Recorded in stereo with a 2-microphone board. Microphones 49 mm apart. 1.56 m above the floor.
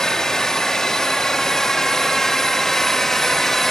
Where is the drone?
10° left (ahead or behind); by 3.7 s 5° left (ahead or behind).